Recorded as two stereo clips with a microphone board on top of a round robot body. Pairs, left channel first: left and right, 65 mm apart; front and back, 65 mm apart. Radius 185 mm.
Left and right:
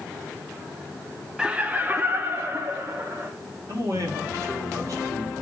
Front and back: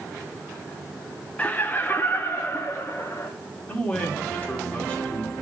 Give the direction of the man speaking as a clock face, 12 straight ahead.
2 o'clock.